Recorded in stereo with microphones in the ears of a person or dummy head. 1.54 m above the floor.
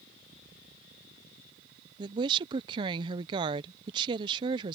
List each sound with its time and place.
2.0 s a woman speaking: 30° right (ahead or behind)